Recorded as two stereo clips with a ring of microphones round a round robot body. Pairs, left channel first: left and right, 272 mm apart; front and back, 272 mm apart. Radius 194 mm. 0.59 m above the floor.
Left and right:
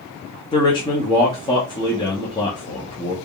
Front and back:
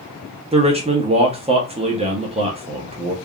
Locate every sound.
0.5 s a man speaking: 145° left, 0.9 m